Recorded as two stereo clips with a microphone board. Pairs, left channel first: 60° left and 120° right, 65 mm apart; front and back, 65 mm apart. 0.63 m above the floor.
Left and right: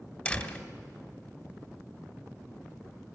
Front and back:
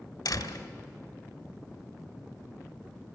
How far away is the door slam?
About 1.9 m.